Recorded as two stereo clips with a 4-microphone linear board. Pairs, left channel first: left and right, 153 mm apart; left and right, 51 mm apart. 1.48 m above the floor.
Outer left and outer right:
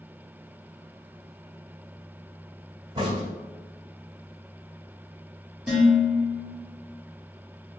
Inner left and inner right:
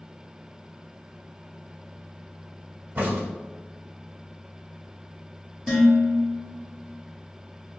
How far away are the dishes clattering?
About 1.2 m.